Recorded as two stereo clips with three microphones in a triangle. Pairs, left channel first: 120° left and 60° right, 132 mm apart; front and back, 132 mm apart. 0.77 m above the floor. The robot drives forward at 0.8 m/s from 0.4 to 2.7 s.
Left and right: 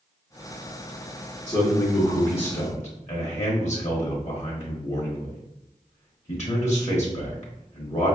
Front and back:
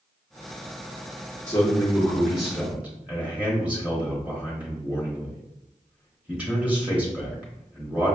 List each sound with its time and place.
1.5 s a man speaking: 60° left, 1.5 m; by 8.2 s 105° left, 1.4 m